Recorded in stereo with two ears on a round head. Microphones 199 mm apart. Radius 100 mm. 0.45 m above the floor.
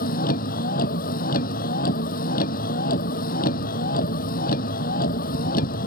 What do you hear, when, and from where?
0.0 s a vehicle: 40° left (ahead or behind)